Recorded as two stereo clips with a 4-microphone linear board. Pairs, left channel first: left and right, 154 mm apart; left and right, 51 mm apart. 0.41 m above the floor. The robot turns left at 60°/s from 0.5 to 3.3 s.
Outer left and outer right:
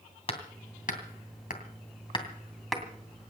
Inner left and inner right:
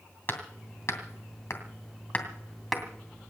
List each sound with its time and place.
0.3 s hammering: 45° left (ahead or behind), 2.5 m; by 2.8 s 5° right (ahead or behind), 2.5 m